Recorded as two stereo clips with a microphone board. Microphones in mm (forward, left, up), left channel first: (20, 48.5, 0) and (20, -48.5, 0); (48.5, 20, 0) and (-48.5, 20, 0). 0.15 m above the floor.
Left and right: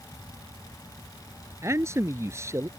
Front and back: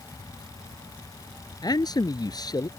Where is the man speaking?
35° right.